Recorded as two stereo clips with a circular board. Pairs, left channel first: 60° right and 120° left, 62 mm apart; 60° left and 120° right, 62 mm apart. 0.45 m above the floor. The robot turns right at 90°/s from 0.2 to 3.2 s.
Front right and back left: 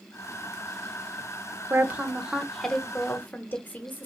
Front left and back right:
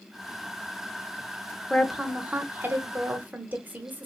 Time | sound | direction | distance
1.7 | a woman speaking | 140° left | 0.8 m